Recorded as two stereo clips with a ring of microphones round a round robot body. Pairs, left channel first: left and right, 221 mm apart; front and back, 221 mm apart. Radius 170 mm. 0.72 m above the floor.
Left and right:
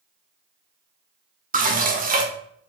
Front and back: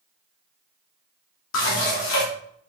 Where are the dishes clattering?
35° right, 1.9 m.